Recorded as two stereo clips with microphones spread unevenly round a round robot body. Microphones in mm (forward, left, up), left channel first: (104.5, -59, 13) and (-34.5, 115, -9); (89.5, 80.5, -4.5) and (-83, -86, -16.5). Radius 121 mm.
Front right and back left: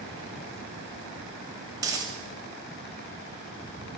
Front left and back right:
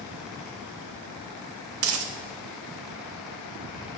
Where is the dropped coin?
160° right, 0.6 m.